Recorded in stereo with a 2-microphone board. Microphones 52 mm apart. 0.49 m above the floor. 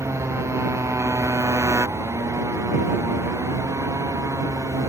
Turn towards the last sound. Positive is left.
turn(degrees=-90)